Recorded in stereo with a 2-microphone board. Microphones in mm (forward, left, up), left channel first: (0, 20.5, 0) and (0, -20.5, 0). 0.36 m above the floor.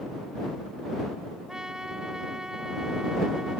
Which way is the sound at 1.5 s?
15° right (ahead or behind).